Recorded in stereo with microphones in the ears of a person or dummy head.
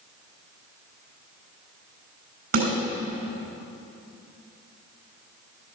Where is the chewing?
No chewing in this recording.